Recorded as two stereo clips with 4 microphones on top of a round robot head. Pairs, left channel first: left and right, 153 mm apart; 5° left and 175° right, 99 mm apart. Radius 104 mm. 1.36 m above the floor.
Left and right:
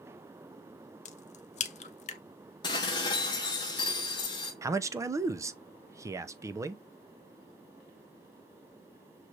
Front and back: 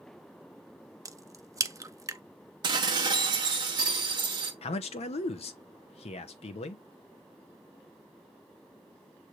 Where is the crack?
130° left, 0.6 m.